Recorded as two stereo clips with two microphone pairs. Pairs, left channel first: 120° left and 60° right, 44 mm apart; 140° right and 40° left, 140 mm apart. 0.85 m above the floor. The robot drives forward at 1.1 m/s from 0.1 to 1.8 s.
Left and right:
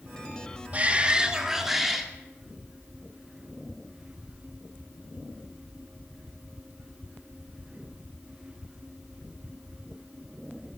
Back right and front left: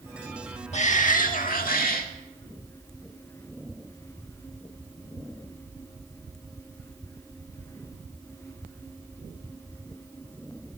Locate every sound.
0.7 s a shout: 110° right, 1.4 m; by 2.1 s 145° right, 2 m